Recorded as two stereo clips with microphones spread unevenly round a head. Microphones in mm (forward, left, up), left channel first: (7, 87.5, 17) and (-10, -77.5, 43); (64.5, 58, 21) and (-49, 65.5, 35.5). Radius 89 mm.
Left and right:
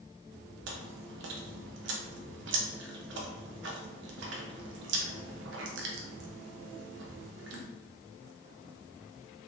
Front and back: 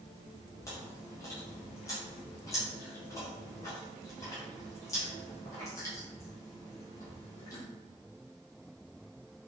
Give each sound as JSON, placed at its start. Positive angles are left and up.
{"t": 0.7, "sound": "chewing", "azimuth_deg": -75, "distance_m": 0.6}